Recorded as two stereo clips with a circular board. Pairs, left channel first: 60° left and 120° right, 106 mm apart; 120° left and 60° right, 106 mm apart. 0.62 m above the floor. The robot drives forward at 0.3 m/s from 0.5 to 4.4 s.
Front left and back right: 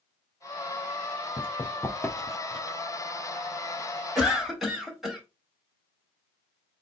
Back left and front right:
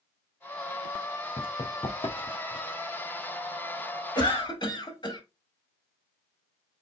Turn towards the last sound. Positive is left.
turn(degrees=150)